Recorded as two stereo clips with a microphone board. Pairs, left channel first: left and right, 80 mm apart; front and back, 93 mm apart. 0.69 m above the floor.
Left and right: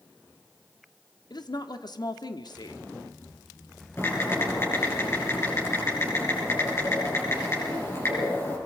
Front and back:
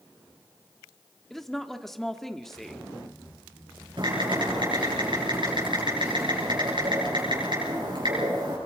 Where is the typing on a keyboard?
145° left, 7.5 m.